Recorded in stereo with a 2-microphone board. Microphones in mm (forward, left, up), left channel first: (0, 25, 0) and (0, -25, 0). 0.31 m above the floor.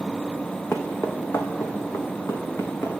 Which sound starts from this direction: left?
Footsteps, at 0.7 s.